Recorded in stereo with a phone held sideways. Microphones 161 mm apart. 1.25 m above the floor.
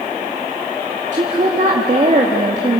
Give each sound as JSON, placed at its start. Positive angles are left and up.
{"t": 1.1, "sound": "a woman speaking", "side_deg": -45, "distance_m": 2.5}